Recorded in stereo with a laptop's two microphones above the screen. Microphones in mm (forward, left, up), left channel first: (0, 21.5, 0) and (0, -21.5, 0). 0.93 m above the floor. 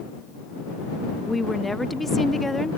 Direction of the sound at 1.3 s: 5° left (ahead or behind).